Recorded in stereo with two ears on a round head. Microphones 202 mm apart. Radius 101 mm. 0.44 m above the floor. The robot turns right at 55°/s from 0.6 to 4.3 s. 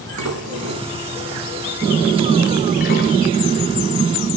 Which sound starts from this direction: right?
Dishes clattering, at 0.2 s.